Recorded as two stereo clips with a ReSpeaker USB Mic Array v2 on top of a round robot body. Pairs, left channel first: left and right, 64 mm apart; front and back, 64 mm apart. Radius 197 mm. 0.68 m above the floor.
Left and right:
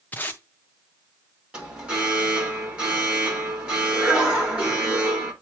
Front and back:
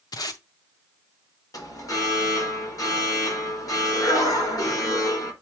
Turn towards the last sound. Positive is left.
turn(degrees=-20)